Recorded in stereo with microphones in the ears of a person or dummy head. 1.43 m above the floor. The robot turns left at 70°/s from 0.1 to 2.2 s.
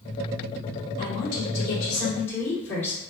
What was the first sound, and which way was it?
A woman speaking, 100° left.